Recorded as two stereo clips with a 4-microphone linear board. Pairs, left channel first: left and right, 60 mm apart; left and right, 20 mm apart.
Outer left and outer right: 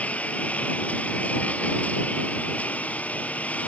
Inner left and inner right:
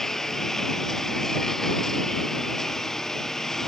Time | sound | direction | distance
0.0 | a lawn mower | 25° left (ahead or behind) | ?